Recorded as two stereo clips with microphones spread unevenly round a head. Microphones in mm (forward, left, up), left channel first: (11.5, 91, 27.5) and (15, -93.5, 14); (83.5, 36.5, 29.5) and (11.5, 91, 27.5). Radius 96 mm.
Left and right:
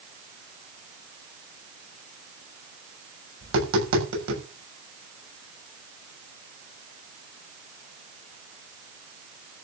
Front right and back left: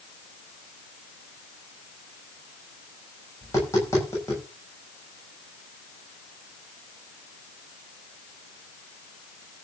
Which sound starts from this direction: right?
Tapping, at 3.4 s.